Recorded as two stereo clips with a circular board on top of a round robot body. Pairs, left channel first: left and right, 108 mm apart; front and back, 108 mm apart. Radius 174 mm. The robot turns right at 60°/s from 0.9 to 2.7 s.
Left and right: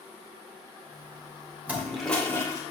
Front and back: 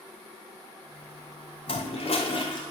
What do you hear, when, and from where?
1.7 s a toilet flushing: 20° right, 2.5 m; by 2.6 s 40° left, 2.5 m